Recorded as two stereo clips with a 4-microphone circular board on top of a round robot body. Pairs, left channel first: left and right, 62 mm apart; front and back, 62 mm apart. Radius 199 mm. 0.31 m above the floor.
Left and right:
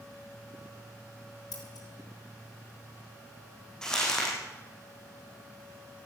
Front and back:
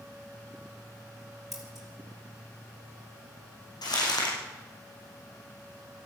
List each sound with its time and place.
1.5 s scissors: 95° left, 4.5 m
3.8 s crumpling: 10° left, 5 m